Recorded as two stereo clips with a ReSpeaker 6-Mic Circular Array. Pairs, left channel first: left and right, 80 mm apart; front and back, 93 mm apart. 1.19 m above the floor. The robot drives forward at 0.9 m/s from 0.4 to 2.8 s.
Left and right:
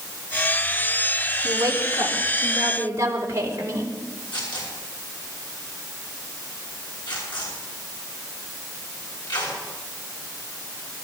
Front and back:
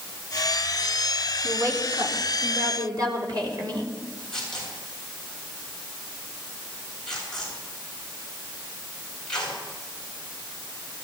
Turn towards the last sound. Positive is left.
turn(degrees=85)